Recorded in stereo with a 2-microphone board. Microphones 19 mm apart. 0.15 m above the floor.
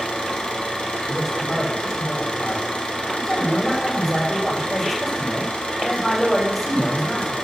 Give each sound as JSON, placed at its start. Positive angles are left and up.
{"t": 0.0, "sound": "an engine running", "side_deg": 75, "distance_m": 3.0}
{"t": 1.1, "sound": "a man speaking", "side_deg": 5, "distance_m": 7.5}